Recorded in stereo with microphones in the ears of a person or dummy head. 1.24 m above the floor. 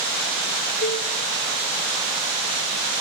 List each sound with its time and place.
0.8 s a cowbell: 45° left (ahead or behind), 4 m